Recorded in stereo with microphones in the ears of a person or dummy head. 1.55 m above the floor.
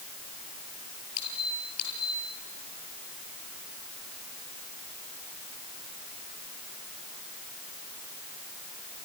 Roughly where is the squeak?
Left.